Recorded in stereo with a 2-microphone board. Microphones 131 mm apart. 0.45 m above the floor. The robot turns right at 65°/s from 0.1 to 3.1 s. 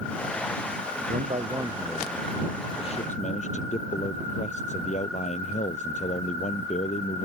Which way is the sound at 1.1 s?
65° right.